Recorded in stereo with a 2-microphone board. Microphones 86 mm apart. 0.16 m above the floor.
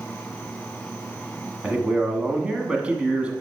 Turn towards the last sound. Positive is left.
turn(degrees=-15)  # may be behind; listen again after turning